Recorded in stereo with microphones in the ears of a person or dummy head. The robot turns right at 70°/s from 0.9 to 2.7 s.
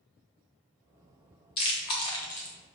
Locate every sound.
1.6 s chewing: 25° left (ahead or behind), 0.8 m; by 2.5 s 10° left (ahead or behind), 0.8 m